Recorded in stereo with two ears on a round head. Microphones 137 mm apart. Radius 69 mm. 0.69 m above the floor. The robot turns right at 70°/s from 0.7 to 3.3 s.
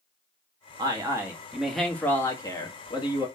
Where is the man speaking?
25° right (ahead or behind), 1.0 m; by 3.3 s 25° left (ahead or behind), 1.0 m.